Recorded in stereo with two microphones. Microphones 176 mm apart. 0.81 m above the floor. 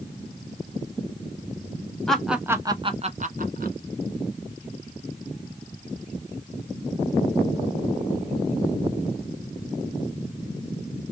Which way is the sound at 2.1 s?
5° left (ahead or behind).